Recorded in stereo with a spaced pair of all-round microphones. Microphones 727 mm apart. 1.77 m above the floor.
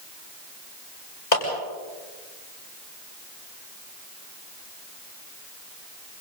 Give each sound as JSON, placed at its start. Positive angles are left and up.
{"t": 1.3, "sound": "a clap", "side_deg": 70, "distance_m": 8.5}